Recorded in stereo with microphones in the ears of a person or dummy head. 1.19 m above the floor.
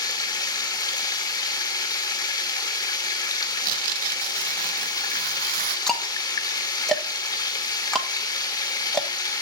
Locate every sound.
0.0 s running water: 20° left (ahead or behind), 0.9 m
3.6 s tearing paper: 50° right (ahead or behind), 0.6 m
5.9 s ticking: 5° left (ahead or behind), 1.0 m